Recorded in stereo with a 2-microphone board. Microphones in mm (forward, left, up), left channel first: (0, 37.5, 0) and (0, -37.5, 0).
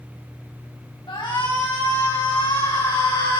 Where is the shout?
85° left, 6.5 m; by 3.4 s 90° left, 9 m.